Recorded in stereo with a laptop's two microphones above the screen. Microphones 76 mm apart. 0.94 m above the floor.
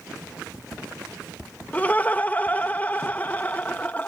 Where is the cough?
I don't hear a cough.